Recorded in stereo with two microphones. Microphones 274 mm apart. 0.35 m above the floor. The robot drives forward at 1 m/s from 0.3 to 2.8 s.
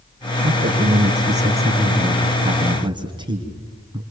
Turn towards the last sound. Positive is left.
turn(degrees=-15)  # may be behind; listen again after turning